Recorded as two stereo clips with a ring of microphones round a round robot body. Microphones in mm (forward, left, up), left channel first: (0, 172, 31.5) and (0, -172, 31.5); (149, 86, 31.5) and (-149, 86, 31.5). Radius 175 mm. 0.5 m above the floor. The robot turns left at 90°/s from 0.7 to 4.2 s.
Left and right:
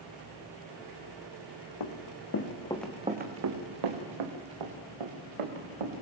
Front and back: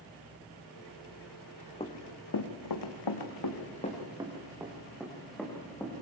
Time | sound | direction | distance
1.8 | running footsteps | 70° left | 2 m